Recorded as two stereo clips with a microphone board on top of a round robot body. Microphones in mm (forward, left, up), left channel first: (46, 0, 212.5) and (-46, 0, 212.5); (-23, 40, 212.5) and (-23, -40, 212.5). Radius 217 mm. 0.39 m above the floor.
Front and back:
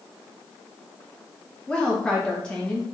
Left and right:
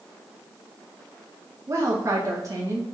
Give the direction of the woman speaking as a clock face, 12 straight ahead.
3 o'clock.